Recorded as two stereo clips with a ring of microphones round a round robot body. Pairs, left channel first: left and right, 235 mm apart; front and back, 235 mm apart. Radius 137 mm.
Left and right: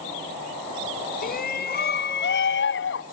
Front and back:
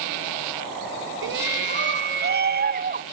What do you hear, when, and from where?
1.2 s a shout: 145° left; by 3.0 s 125° left